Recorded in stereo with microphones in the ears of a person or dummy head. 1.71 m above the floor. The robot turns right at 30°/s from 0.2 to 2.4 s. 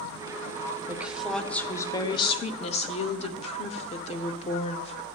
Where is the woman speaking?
10° right, 0.6 m; by 5.0 s 35° left, 0.6 m.